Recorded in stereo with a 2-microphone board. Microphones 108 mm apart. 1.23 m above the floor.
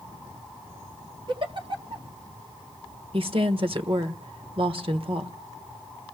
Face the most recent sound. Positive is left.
turn(degrees=-55)  # may be behind; listen again after turning